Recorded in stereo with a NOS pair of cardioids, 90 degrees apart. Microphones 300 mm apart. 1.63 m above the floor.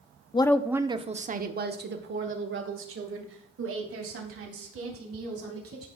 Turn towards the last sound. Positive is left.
turn(degrees=-50)